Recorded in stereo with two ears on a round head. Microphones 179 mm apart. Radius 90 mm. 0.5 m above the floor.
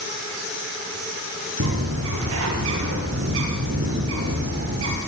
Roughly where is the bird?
Right.